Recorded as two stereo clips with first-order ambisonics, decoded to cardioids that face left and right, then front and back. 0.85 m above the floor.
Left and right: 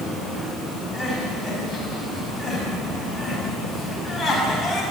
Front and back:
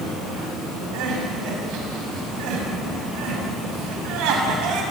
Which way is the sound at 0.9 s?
175° left.